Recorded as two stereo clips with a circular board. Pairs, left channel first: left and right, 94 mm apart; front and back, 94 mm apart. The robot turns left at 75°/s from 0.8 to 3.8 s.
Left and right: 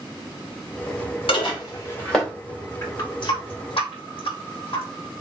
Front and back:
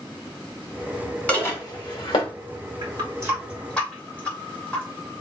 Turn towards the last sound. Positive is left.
turn(degrees=75)